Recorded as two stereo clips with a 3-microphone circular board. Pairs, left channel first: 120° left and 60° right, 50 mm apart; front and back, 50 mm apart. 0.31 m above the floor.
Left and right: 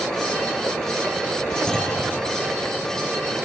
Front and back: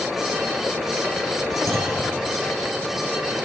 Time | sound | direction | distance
1.7 | a clunk | 165° right | 4 m